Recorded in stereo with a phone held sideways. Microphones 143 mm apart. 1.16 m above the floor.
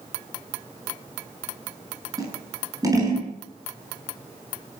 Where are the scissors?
25° right (ahead or behind), 9 m.